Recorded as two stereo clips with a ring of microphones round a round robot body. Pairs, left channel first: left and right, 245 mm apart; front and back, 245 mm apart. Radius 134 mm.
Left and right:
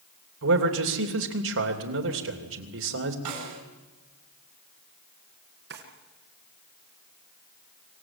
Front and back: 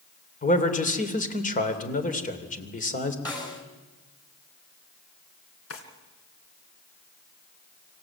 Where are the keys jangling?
I don't hear keys jangling.